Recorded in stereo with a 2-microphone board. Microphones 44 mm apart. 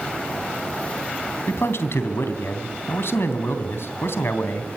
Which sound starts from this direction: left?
A man speaking, at 1.5 s.